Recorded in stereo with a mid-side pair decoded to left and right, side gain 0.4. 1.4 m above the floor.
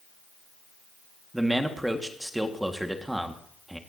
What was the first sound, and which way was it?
A man speaking, 5° right.